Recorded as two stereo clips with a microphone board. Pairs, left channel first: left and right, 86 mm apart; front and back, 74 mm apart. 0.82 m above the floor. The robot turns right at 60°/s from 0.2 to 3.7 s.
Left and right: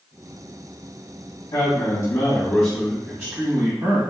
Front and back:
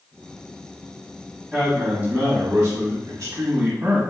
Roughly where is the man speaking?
Left.